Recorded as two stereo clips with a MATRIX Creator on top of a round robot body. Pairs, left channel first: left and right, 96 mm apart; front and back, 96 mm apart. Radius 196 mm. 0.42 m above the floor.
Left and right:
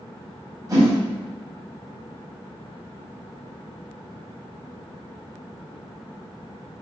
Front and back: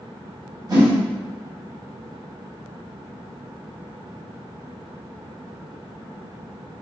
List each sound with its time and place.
0.7 s a whoosh: 135° right, 1.7 m